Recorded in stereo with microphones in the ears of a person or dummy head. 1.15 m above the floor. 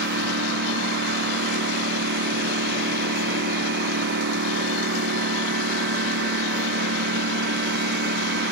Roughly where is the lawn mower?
Right.